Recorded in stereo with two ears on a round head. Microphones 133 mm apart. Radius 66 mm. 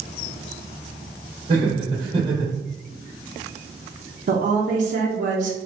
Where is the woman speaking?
55° right (ahead or behind), 0.7 m.